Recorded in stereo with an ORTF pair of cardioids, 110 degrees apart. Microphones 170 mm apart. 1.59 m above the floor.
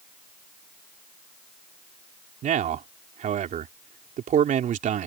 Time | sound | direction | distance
2.4 | a man speaking | 55° right | ?